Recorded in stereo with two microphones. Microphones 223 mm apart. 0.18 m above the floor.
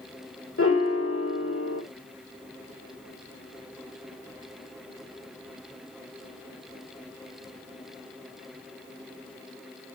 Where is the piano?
75° left (ahead or behind), 1.2 m.